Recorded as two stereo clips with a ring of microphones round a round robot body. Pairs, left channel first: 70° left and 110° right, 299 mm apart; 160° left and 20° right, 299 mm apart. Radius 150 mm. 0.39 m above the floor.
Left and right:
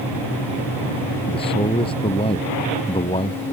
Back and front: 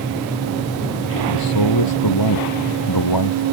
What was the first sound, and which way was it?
A man speaking, 140° left.